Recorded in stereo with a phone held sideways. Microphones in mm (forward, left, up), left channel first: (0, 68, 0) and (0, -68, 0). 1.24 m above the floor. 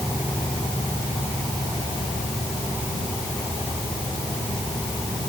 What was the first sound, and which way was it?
Only background noise.